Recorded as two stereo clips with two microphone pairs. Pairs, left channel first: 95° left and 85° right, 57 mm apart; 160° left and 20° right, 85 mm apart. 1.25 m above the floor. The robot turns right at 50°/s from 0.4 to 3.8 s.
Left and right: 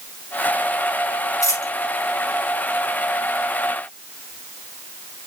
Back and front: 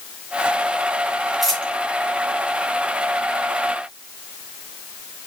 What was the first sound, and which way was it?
A dropped coin, 70° left.